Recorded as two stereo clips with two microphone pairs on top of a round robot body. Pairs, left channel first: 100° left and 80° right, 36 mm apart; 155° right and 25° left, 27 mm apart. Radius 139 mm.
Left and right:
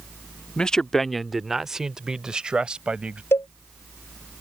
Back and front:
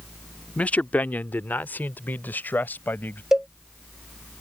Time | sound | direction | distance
0.6 | a man speaking | 160° left | ?
3.3 | a cowbell | 100° left | ?